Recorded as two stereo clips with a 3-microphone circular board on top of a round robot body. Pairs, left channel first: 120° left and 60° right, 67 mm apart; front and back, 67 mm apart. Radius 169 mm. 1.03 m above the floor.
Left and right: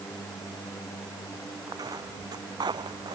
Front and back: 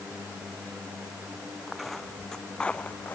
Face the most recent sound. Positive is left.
turn(degrees=-65)